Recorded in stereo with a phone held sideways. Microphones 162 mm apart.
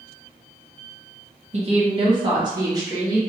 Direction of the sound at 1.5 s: 40° right (ahead or behind).